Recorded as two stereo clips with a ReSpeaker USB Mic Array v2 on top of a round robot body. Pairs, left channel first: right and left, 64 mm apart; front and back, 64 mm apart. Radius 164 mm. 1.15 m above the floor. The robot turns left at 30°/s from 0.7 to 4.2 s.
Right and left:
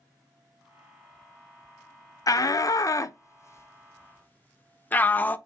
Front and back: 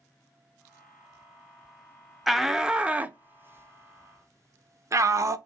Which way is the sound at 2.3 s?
90° right.